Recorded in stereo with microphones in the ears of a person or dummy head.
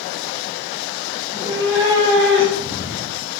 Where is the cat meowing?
20° right (ahead or behind), 1.4 m; by 3.3 s 35° right (ahead or behind), 2.5 m.